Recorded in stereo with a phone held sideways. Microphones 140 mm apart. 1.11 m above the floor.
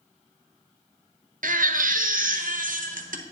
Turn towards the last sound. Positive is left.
turn(degrees=-75)  # may be behind; listen again after turning